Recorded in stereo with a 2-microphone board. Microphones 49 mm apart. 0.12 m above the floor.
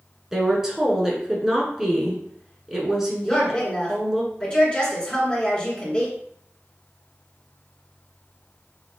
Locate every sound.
0.3 s a woman speaking: 10° right (ahead or behind), 1.1 m
3.2 s a woman speaking: 25° left (ahead or behind), 1.7 m